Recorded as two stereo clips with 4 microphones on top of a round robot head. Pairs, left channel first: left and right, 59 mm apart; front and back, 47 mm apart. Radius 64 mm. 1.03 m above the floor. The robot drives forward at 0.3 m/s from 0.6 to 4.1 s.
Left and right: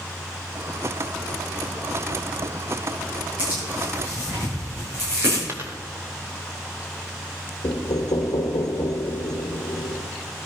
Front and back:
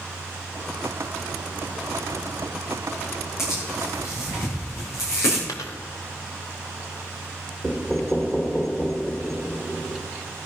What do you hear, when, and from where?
3.4 s tearing paper: 30° right, 9 m
5.5 s a dropped coin: 30° right, 0.9 m
7.6 s knocking: 80° left, 1.3 m